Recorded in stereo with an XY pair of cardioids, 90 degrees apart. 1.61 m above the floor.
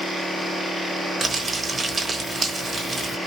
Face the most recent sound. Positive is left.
turn(degrees=-45)